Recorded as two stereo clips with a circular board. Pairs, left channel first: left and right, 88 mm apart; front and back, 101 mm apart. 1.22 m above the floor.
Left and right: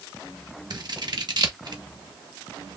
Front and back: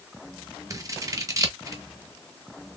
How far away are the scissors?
About 1.2 m.